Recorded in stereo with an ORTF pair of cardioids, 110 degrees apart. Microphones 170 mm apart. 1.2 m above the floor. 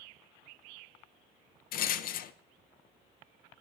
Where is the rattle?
55° left, 0.5 m.